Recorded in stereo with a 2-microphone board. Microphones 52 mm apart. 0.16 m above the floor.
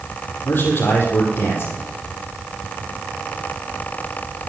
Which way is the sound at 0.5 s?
40° left (ahead or behind).